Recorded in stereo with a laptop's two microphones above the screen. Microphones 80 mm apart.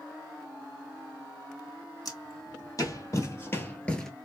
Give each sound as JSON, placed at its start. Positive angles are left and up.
{"t": 2.0, "sound": "footsteps", "side_deg": 50, "distance_m": 2.0}